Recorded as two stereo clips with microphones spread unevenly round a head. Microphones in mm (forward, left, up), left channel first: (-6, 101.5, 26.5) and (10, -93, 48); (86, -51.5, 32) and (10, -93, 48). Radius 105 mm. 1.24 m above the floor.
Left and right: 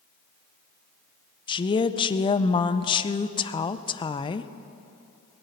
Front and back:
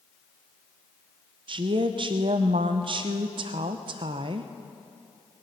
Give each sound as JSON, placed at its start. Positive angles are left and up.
{"t": 1.5, "sound": "a woman speaking", "azimuth_deg": 160, "distance_m": 0.5}